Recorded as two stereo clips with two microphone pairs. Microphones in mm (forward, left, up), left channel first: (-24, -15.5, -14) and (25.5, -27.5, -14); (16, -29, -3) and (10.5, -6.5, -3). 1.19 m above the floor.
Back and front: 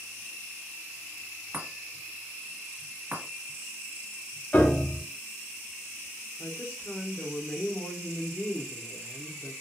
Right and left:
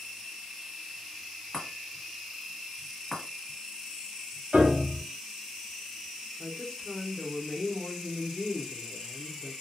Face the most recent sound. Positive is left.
turn(degrees=-140)